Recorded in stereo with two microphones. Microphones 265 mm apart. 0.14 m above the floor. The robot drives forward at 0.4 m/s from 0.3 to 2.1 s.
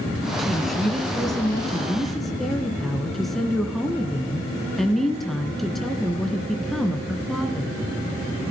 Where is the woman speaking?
Centre (ahead or behind), 1.7 m.